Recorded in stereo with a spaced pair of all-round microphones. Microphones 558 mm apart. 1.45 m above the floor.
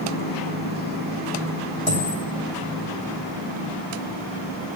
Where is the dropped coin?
60° right (ahead or behind), 3 m.